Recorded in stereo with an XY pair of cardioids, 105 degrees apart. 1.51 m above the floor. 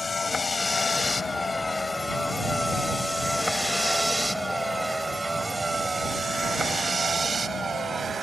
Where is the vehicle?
25° left; by 8.2 s 40° right.